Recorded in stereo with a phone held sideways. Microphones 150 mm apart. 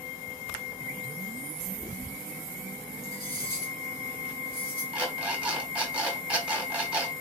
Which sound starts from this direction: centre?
An alarm clock, at 4.9 s.